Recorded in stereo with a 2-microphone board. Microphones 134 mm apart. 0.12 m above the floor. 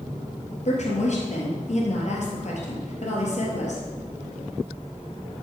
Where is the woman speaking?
60° left (ahead or behind), 2.5 m.